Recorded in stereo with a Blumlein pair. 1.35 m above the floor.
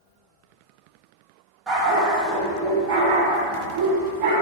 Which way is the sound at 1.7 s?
20° right.